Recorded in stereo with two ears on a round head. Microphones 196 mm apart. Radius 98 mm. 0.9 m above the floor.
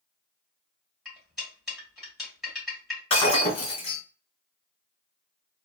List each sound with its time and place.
1.1 s cutlery clinking: centre (ahead or behind), 2 m
3.1 s breaking glass: 25° left (ahead or behind), 1.8 m